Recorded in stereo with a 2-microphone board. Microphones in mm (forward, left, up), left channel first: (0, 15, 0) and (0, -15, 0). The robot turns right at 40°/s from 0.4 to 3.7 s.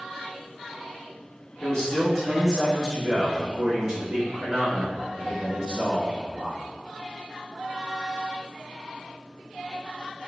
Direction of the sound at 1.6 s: 120° left.